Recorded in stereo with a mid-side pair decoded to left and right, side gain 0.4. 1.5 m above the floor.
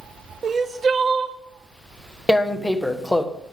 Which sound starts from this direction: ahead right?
Crying, at 0.4 s.